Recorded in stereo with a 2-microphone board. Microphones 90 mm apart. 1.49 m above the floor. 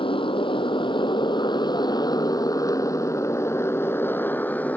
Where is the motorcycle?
75° left (ahead or behind); by 4.8 s 15° left (ahead or behind).